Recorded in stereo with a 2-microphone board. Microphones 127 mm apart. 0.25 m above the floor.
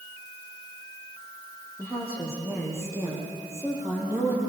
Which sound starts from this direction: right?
A woman speaking, at 1.8 s.